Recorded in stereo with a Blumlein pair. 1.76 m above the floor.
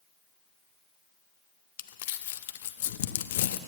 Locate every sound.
1.8 s crumpling: 55° left, 0.5 m